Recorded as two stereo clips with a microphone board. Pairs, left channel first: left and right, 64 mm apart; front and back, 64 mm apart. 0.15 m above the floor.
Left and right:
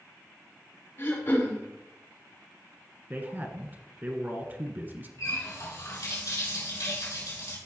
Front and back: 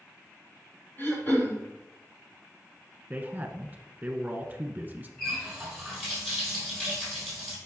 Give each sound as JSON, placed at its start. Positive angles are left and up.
{"t": 1.0, "sound": "throat clearing", "azimuth_deg": 50, "distance_m": 3.0}
{"t": 3.1, "sound": "a man speaking", "azimuth_deg": -125, "distance_m": 1.5}
{"t": 5.2, "sound": "a running tap", "azimuth_deg": 90, "distance_m": 3.5}